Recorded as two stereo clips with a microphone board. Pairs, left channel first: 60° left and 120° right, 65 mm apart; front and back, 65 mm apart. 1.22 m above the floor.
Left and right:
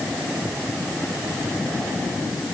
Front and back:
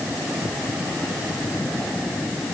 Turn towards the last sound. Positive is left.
No sound to turn to.